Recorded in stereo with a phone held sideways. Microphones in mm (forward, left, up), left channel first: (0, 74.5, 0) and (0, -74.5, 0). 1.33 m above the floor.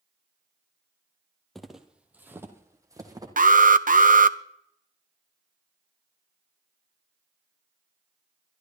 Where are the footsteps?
Centre (ahead or behind), 1.6 m; by 3.3 s 25° right (ahead or behind), 2.5 m.